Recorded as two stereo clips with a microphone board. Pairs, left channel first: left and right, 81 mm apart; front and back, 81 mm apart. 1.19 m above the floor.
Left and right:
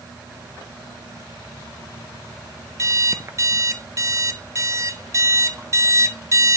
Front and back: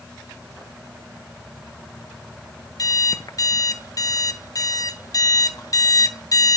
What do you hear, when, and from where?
2.8 s an alarm clock: 40° right, 0.6 m